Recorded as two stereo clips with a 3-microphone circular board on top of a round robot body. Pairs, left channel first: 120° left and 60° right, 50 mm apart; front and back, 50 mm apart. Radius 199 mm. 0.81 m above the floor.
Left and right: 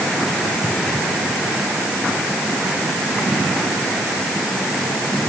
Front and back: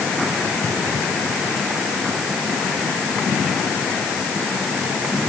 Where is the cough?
No cough in this recording.